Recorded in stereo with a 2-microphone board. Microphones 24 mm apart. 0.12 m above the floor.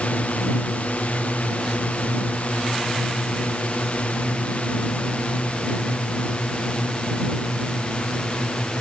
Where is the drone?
75° left (ahead or behind); by 8.8 s 50° left (ahead or behind).